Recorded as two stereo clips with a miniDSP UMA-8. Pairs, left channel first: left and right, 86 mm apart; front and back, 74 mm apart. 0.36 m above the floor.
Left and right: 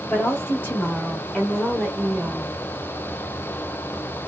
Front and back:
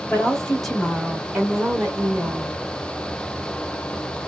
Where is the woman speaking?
65° left, 1.3 m; by 2.6 s 170° right, 1.3 m.